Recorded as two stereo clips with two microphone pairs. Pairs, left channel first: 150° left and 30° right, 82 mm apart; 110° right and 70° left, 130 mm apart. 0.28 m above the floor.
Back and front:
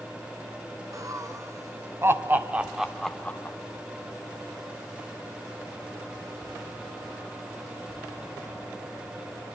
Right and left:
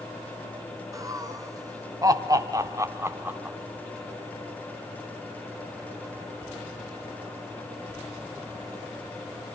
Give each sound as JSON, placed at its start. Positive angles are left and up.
{"t": 0.9, "sound": "laughter", "azimuth_deg": 10, "distance_m": 3.0}